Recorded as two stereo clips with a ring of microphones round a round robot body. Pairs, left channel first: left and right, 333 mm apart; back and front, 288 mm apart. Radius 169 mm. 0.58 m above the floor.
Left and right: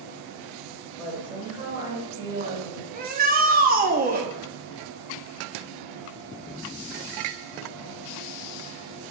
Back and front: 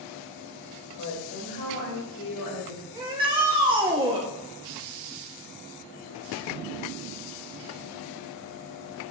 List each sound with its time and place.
1.0 s a woman speaking: straight behind, 2.5 m; by 2.8 s 160° right, 3 m
2.9 s a shout: 55° right, 0.7 m